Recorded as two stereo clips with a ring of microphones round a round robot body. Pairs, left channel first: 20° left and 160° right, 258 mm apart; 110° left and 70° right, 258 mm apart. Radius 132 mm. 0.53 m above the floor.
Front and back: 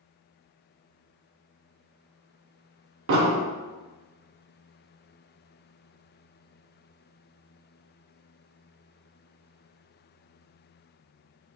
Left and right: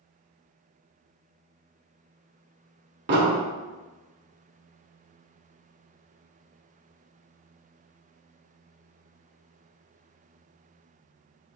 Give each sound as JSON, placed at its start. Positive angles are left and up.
{"t": 3.1, "sound": "an explosion", "azimuth_deg": -115, "distance_m": 0.9}